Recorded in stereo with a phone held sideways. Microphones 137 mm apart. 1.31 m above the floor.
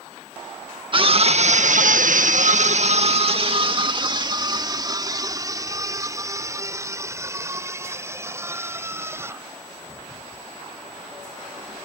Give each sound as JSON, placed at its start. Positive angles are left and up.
{"t": 0.9, "sound": "a scream", "side_deg": -40}